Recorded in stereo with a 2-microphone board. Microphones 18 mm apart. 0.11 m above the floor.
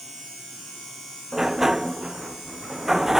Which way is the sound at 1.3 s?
10° right (ahead or behind).